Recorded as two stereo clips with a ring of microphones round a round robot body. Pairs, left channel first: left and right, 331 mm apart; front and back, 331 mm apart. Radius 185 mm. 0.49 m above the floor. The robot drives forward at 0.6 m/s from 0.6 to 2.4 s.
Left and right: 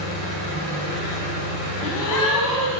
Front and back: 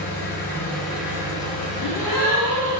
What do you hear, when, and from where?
0.0 s an engine running: 85° right, 1.5 m; by 2.8 s 125° right, 1.7 m
1.8 s a gasp: 115° left, 1.0 m; by 2.8 s 130° left, 1.2 m